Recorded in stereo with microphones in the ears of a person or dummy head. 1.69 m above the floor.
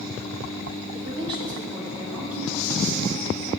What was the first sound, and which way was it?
A woman speaking, 35° right (ahead or behind).